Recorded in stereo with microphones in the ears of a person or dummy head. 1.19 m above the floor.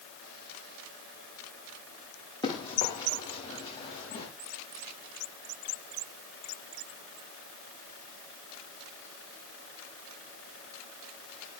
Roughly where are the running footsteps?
Left.